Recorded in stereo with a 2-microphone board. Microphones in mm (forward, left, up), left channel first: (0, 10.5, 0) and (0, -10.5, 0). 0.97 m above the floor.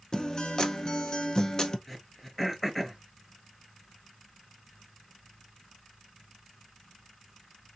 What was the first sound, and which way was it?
A guitar, 40° left (ahead or behind).